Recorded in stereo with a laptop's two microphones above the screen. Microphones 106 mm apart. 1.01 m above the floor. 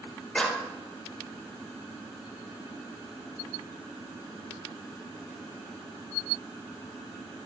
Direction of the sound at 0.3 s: 10° left (ahead or behind).